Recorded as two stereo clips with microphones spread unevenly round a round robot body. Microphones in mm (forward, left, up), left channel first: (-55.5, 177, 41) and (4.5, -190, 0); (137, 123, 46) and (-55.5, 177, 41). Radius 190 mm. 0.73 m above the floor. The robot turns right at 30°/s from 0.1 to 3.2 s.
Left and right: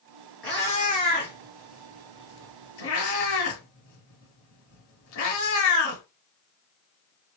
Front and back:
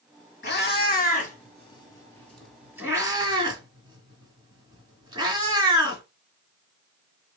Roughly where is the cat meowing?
Ahead.